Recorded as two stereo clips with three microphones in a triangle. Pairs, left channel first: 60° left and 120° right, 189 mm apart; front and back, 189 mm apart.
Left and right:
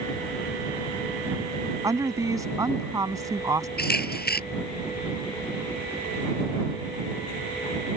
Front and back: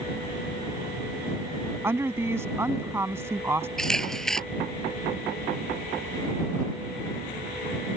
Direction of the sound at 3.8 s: 85° left.